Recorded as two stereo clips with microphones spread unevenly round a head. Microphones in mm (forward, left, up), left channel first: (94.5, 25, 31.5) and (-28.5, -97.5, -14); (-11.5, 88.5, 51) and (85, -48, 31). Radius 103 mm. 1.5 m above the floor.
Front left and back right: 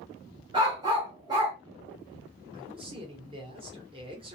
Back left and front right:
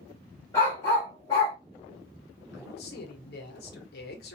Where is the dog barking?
155° left, 1.0 m.